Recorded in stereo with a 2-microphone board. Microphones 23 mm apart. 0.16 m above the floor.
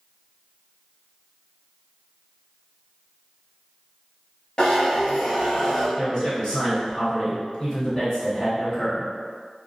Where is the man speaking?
35° left (ahead or behind), 1.5 m.